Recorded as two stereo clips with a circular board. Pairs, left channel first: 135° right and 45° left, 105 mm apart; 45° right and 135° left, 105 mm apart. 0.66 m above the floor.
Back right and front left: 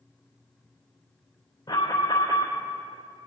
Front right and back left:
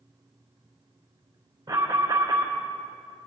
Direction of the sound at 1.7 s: Straight behind.